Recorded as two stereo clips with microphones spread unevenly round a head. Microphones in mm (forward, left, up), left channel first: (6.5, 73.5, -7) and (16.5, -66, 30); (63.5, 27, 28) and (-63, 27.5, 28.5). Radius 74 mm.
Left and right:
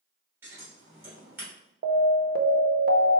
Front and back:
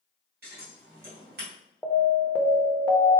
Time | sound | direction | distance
0.4 | scissors | 155° right | 2.5 m
1.8 | an alarm | 80° right | 0.6 m